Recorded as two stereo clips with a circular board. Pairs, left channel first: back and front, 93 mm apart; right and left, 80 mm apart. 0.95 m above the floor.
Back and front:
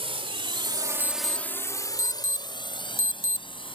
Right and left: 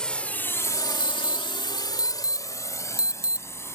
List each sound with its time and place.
0.0 s a drone: 10° right; by 3.8 s 150° right
1.0 s an alarm: 155° left